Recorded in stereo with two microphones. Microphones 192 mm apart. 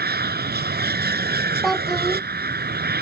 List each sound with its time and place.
0.0 s an aircraft: 55° right (ahead or behind)
1.6 s a child speaking: centre (ahead or behind)